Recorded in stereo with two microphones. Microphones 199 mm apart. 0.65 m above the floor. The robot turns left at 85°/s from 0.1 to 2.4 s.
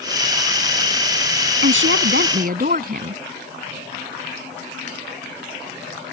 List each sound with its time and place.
1.6 s a woman speaking: 65° right; by 3.2 s 135° right